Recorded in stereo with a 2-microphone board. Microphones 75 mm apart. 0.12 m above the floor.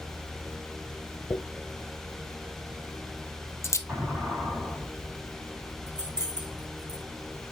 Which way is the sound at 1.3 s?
40° left (ahead or behind).